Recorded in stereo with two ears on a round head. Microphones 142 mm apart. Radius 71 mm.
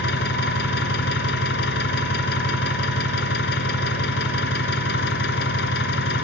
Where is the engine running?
75° left (ahead or behind), 2.5 m.